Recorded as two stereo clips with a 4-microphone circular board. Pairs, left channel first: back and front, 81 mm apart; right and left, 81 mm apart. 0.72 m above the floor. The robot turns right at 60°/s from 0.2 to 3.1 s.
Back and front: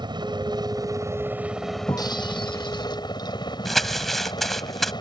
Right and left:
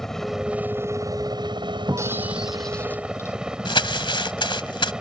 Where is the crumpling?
95° right.